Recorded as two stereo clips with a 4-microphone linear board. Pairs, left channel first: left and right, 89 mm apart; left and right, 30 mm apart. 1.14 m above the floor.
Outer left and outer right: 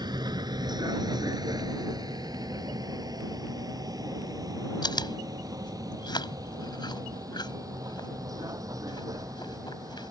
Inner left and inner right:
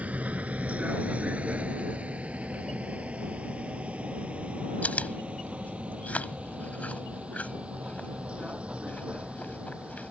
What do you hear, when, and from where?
0.0 s a vehicle: 55° right (ahead or behind); by 10.1 s 40° right (ahead or behind)
4.8 s chewing: 55° left (ahead or behind)